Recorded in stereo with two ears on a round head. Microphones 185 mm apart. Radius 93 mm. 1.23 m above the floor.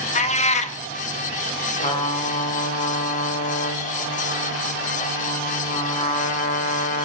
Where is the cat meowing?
35° left (ahead or behind), 0.8 m.